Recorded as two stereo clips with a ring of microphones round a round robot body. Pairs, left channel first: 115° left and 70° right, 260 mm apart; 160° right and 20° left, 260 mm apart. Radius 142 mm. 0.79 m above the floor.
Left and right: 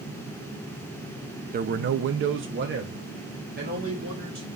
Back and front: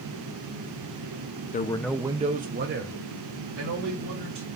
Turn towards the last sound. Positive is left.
turn(degrees=-10)